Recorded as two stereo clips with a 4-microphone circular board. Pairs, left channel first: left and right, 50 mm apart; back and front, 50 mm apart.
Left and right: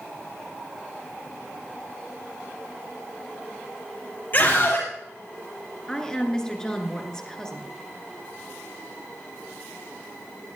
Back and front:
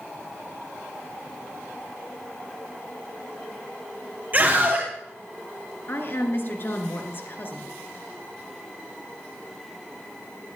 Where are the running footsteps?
I don't hear running footsteps.